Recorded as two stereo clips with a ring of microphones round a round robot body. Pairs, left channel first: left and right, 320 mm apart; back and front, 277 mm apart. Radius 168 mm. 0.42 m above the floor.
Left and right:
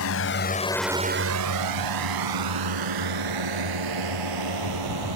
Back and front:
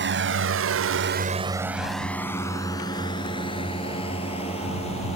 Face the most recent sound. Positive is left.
turn(degrees=-110)